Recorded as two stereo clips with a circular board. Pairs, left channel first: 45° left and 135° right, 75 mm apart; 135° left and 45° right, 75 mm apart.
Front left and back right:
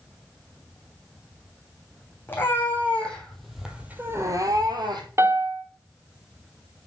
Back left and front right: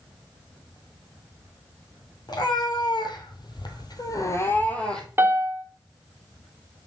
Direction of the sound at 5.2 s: 95° right.